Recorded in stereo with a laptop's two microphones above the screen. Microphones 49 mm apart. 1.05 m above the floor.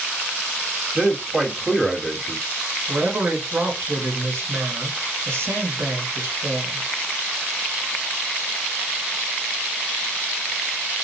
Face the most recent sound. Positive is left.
turn(degrees=-60)  # may be behind; listen again after turning